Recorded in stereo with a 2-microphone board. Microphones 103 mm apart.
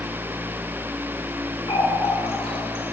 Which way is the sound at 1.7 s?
65° left (ahead or behind).